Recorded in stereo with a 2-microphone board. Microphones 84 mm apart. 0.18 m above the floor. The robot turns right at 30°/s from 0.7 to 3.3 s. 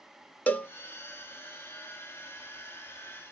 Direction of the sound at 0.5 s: 25° left (ahead or behind).